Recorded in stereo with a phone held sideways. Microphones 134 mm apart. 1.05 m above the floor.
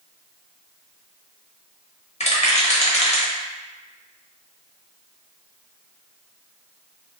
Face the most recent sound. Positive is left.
turn(degrees=55)  # may be behind; listen again after turning